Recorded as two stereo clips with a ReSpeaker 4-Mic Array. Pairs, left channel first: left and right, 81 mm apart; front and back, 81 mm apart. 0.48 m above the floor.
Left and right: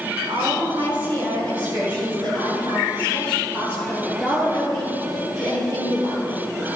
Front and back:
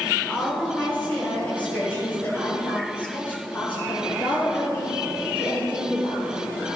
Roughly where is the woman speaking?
Right.